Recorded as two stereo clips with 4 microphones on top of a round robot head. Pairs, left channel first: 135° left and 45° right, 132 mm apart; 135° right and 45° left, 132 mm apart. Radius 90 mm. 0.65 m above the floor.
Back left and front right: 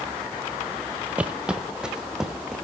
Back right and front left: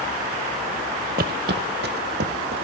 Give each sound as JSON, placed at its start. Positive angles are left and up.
{"t": 1.2, "sound": "footsteps", "azimuth_deg": 35, "distance_m": 0.8}